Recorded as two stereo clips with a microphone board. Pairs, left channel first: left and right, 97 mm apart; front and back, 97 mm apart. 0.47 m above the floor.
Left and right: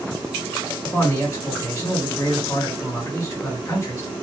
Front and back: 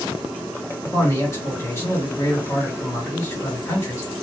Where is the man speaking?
45° left, 1.9 m.